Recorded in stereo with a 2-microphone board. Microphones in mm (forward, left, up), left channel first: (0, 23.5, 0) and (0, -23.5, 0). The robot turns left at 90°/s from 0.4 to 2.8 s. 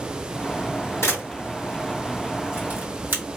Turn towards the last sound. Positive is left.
turn(degrees=-45)  # may be behind; listen again after turning